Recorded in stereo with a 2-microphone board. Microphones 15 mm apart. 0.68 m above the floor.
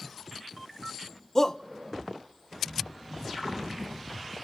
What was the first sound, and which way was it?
A shout, 25° left (ahead or behind).